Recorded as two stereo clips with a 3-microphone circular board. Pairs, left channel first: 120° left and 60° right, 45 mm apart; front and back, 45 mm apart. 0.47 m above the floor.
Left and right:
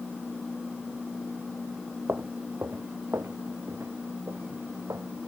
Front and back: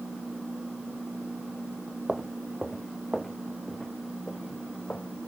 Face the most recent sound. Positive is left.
turn(degrees=-55)